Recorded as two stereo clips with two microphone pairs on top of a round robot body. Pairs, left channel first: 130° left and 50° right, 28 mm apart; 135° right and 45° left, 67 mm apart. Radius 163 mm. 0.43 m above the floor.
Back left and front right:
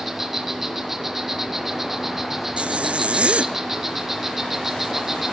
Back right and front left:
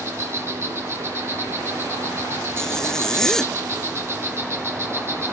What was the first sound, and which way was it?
An insect, 20° left.